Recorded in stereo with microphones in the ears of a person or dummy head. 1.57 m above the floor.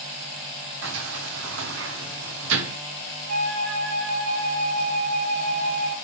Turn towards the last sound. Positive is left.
turn(degrees=-45)  # may be behind; listen again after turning